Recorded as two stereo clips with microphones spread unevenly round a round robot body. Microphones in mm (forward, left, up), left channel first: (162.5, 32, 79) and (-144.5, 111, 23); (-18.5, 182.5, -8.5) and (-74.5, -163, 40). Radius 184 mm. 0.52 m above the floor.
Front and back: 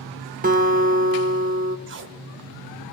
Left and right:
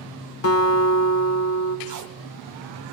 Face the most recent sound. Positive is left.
turn(degrees=-145)